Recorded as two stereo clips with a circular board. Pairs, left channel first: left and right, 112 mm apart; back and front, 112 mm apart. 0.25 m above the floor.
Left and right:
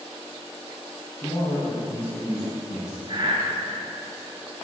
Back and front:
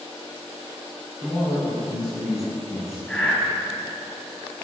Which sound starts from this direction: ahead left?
A man speaking, at 1.2 s.